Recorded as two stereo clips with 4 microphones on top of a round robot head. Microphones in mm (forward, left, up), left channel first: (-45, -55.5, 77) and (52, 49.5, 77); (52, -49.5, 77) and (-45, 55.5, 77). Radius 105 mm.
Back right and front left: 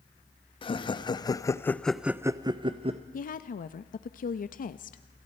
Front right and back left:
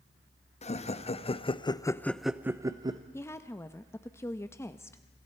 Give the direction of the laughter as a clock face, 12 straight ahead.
3 o'clock.